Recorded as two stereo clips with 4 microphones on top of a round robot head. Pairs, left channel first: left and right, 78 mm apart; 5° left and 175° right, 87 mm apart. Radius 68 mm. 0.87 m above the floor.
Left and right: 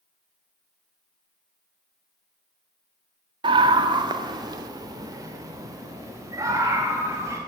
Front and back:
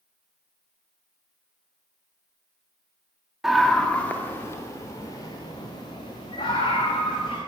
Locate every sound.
3.4 s a scream: 85° right, 1.5 m; by 7.4 s 40° right, 5 m